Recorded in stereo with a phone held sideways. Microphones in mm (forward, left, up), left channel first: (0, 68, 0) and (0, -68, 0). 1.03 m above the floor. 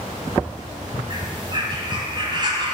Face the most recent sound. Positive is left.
turn(degrees=-35)  # may be behind; listen again after turning